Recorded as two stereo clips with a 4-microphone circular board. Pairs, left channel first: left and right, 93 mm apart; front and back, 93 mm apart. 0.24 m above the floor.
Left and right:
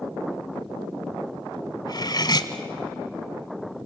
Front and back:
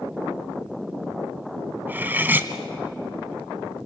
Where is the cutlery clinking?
115° left, 1.1 m.